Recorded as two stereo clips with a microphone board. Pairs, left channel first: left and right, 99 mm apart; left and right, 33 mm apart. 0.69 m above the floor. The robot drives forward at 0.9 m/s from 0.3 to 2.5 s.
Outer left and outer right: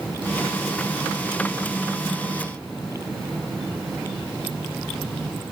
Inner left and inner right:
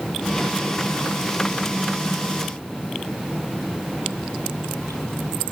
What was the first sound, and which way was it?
Only background noise.